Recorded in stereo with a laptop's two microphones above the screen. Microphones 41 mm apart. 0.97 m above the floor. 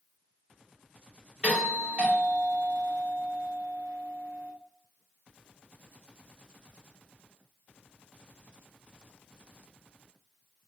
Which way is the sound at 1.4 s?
15° right (ahead or behind).